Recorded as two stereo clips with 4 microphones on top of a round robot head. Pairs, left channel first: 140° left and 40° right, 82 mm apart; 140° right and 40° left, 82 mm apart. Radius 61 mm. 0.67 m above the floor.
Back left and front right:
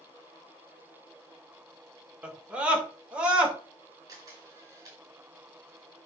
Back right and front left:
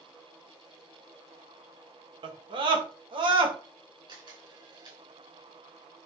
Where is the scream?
35° left, 2 m.